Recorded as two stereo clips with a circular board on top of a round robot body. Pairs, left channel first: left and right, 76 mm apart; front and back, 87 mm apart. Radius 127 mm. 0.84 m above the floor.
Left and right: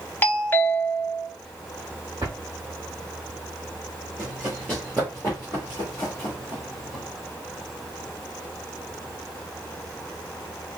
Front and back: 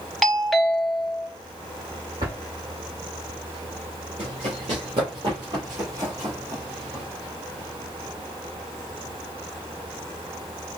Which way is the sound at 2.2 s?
145° right.